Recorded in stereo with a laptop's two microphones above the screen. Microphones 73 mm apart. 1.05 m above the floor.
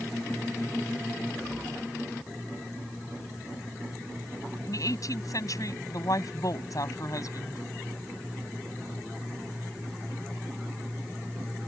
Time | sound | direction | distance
4.7 | a woman speaking | 55° left (ahead or behind) | ?